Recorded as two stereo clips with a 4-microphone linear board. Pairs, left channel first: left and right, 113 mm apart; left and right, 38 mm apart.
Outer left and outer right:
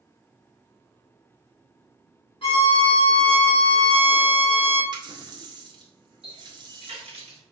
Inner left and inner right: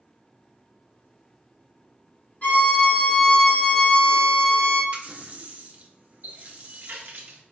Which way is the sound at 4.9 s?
40° right (ahead or behind).